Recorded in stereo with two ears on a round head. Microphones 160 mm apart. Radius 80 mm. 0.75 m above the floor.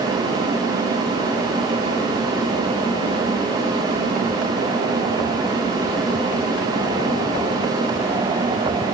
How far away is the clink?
I don't hear a clink.